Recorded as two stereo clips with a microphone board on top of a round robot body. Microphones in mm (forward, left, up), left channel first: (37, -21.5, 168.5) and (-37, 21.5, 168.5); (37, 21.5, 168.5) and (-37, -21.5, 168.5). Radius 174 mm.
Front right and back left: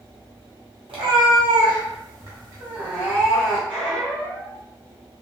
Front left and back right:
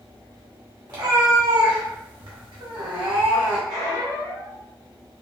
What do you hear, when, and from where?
0.9 s a cat meowing: 170° left, 1.4 m; by 3.6 s 120° right, 1.7 m
3.7 s a squeak: 130° right, 1.8 m